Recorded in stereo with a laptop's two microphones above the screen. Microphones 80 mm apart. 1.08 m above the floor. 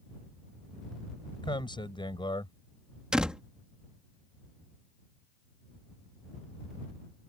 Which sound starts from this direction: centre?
A door slam, at 3.1 s.